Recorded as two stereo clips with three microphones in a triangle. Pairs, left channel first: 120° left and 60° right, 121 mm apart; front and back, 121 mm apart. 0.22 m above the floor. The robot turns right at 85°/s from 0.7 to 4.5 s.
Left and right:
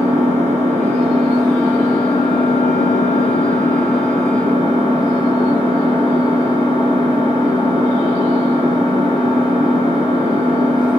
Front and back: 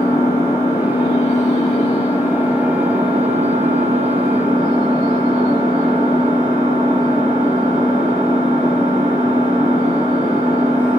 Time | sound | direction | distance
0.0 | an engine running | 70° right | 3.5 m